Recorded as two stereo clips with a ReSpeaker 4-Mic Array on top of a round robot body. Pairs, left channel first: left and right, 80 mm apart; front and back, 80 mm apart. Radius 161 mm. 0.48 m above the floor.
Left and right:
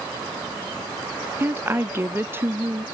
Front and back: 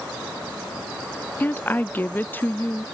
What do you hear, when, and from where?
1.4 s a woman speaking: 50° right